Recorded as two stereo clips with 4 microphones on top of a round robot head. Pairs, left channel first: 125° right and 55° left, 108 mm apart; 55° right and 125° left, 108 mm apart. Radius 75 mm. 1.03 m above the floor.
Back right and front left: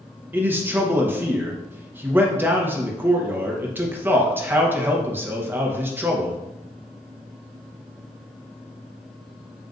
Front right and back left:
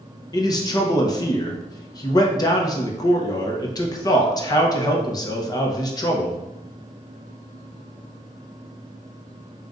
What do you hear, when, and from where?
0.3 s a man speaking: 10° right, 1.0 m